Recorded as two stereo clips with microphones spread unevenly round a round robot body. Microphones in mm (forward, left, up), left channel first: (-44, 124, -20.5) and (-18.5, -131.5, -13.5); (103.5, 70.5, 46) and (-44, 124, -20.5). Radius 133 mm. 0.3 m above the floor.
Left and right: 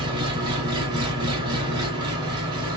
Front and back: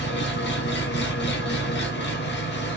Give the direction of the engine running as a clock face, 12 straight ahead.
12 o'clock.